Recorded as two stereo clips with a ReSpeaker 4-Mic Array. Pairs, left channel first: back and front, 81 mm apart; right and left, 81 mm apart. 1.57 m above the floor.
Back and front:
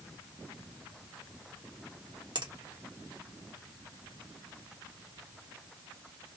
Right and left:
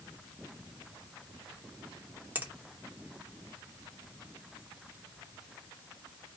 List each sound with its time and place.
2.4 s a finger snap: 20° left, 0.9 m